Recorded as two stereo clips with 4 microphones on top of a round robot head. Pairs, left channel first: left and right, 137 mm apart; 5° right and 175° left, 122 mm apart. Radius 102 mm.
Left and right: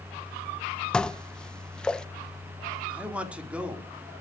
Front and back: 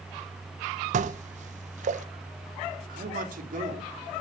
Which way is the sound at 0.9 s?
170° left.